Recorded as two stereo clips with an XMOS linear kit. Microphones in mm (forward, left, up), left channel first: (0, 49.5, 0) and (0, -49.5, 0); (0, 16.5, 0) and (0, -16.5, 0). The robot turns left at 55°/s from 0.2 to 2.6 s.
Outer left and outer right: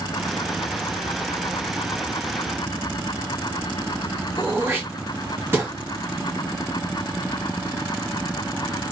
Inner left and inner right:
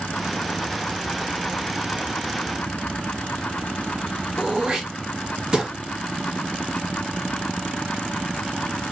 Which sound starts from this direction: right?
Throat clearing, at 4.4 s.